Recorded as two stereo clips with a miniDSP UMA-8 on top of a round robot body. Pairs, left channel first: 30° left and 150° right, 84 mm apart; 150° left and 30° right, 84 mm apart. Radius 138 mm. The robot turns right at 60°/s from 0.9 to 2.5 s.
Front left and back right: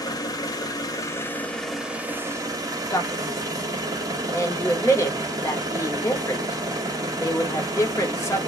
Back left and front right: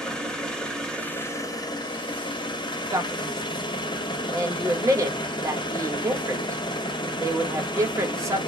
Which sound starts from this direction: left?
An engine running, at 0.0 s.